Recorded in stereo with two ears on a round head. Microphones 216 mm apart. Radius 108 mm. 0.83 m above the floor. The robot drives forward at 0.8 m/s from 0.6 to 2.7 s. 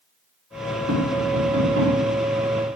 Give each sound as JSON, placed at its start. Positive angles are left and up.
{"t": 0.9, "sound": "tapping", "side_deg": -60, "distance_m": 4.0}